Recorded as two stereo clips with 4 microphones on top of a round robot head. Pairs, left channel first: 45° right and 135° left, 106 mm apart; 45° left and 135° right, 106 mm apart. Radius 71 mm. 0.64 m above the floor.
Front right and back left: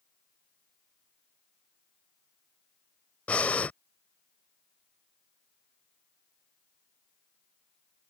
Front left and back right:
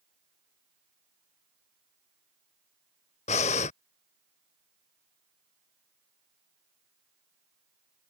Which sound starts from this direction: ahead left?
Breathing, at 3.3 s.